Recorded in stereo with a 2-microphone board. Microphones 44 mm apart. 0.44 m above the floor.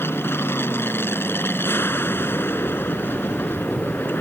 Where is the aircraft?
65° left (ahead or behind); by 4.2 s 55° left (ahead or behind).